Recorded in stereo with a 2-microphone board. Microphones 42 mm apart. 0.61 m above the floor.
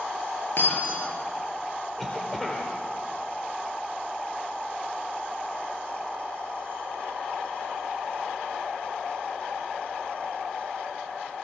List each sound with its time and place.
0.6 s breaking glass: 55° left (ahead or behind), 8.5 m
2.0 s a cough: 5° left (ahead or behind), 2.5 m